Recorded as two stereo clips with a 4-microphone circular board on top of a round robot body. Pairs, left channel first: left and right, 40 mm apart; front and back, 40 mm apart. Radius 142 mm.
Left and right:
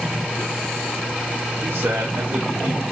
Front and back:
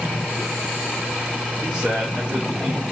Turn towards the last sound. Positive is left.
turn(degrees=-110)